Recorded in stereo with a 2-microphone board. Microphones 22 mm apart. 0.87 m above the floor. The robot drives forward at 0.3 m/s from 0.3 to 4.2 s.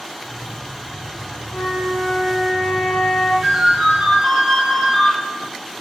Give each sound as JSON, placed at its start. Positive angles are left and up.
{"t": 1.5, "sound": "a flute", "side_deg": 30, "distance_m": 1.1}
{"t": 3.4, "sound": "a ringtone", "side_deg": -85, "distance_m": 1.4}